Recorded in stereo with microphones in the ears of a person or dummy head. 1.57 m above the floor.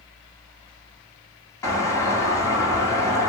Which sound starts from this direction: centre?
A doorbell, at 1.6 s.